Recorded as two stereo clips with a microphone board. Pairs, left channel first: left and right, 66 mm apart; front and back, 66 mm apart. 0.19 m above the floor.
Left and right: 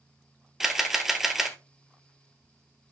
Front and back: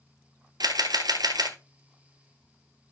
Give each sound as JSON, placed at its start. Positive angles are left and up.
{"t": 0.6, "sound": "a camera shutter", "azimuth_deg": -175, "distance_m": 1.1}